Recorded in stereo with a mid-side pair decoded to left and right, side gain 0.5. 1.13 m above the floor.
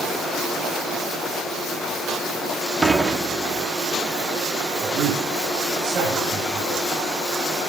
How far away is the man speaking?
About 7 m.